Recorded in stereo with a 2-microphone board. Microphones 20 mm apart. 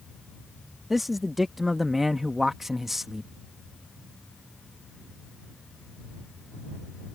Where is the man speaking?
10° right (ahead or behind).